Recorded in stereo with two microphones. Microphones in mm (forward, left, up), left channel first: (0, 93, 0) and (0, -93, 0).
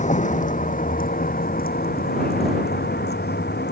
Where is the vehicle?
40° left (ahead or behind); by 3.7 s 65° left (ahead or behind).